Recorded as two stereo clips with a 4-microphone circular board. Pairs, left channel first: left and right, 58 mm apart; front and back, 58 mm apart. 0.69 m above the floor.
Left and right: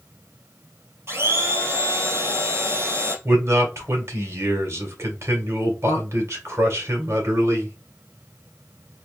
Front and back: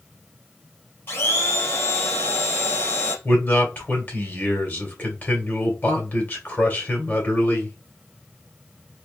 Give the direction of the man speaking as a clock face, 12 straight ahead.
2 o'clock.